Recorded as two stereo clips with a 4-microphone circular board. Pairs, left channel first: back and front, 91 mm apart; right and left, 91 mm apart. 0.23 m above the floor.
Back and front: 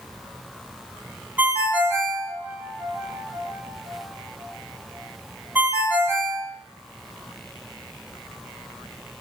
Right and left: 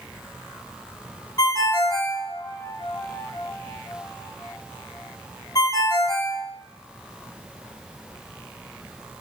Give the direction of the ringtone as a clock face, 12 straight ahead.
2 o'clock.